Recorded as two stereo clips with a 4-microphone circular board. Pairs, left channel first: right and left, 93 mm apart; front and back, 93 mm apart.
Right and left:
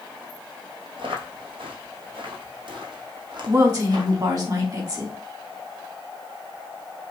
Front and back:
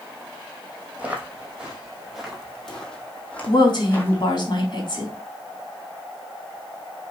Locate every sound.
1.0 s footsteps: 105° left, 3 m; by 4.2 s 60° left, 2.5 m
3.5 s a woman speaking: 40° left, 3.5 m